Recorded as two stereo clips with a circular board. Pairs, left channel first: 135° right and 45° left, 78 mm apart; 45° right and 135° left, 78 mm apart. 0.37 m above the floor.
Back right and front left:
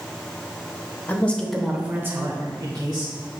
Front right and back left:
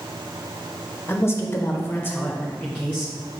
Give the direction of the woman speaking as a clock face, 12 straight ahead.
3 o'clock.